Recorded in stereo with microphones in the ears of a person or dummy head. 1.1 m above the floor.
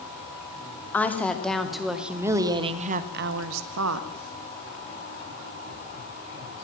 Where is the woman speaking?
10° left (ahead or behind), 2.5 m; by 4.1 s 80° right, 1.6 m.